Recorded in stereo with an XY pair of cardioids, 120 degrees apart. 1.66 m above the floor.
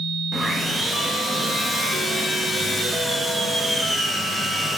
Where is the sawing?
5° right, 3 m.